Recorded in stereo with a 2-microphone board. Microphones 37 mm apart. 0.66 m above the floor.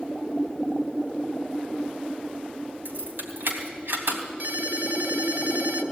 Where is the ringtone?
55° right (ahead or behind), 2.5 m.